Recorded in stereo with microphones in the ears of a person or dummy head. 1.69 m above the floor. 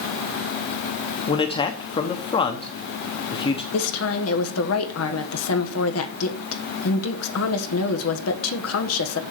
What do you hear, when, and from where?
1.3 s a man speaking: 30° left (ahead or behind), 1.1 m
3.7 s a woman speaking: 85° left, 1.6 m